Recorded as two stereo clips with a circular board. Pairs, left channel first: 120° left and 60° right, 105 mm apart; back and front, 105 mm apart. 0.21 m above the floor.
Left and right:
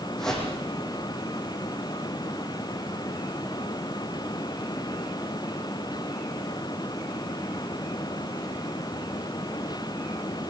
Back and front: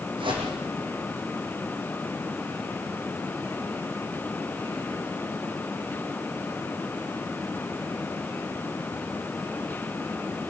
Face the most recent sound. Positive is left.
turn(degrees=35)